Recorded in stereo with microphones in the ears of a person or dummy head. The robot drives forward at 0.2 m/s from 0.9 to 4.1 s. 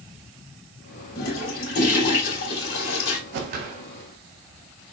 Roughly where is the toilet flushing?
Left.